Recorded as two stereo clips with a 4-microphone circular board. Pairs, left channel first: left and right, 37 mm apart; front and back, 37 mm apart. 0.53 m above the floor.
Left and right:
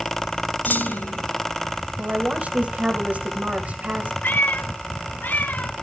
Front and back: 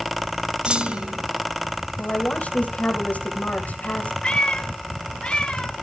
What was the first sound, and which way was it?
A clunk, 120° left.